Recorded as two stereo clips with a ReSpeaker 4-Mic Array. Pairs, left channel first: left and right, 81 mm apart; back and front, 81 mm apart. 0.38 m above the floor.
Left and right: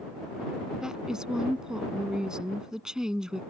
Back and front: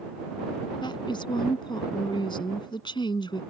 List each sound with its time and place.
0.8 s a woman speaking: 170° right